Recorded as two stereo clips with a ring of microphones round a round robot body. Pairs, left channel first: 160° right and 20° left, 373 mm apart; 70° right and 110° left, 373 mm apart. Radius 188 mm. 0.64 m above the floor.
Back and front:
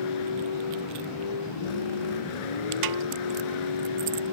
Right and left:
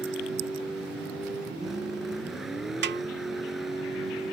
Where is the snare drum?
50° left.